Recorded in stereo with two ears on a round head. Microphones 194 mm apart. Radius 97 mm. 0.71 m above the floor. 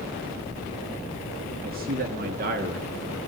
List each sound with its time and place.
1.6 s a man speaking: 45° right (ahead or behind), 1.5 m